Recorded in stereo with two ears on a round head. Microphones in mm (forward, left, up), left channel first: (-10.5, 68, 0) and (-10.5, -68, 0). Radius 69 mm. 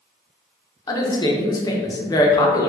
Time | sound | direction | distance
0.9 | a woman speaking | 25° left (ahead or behind) | 0.8 m